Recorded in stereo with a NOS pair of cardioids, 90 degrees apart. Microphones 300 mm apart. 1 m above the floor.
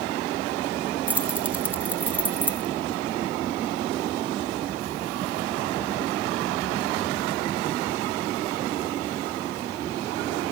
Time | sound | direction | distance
1.1 | keys jangling | 5° right | 1.5 m